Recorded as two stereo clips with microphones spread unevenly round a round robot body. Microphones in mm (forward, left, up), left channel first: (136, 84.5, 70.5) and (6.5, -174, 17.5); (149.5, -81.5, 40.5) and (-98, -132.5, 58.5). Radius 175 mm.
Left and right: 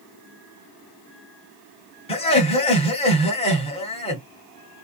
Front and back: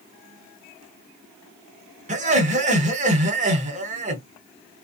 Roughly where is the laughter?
Behind left.